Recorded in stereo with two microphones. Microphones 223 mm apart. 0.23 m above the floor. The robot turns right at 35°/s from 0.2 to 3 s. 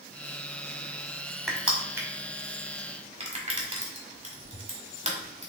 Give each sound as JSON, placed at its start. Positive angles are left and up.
{"t": 1.5, "sound": "crushing", "side_deg": 0, "distance_m": 1.2}